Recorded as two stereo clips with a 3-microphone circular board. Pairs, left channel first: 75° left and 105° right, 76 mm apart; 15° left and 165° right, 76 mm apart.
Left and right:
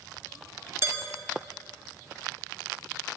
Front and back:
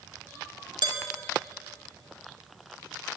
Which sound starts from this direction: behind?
Dishes clattering, at 0.8 s.